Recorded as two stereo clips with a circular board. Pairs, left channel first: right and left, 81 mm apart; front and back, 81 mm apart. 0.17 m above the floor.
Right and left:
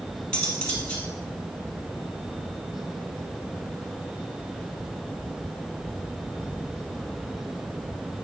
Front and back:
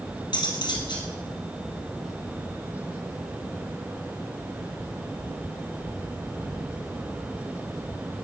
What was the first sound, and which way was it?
Cutlery clinking, 10° right.